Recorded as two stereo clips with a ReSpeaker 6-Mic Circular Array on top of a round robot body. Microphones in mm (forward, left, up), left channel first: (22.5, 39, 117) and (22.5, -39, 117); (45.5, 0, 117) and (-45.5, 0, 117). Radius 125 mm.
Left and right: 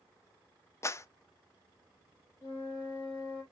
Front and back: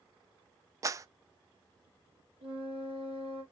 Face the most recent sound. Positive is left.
turn(degrees=155)